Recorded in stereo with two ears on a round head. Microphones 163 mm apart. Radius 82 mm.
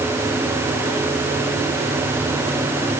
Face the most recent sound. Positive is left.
No sound to turn to.